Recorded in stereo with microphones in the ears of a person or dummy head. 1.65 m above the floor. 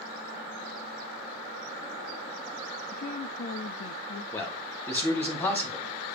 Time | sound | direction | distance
2.9 | a woman speaking | 50° left (ahead or behind) | 0.5 m
4.3 | a man speaking | 10° left (ahead or behind) | 2.0 m